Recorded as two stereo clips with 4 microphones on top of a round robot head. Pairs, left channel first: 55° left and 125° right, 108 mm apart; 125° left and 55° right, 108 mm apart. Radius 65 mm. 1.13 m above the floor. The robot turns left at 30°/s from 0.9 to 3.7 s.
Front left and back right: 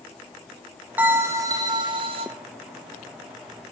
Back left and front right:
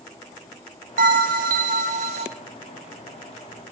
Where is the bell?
50° right, 0.5 m; by 2.3 s 90° right, 0.5 m.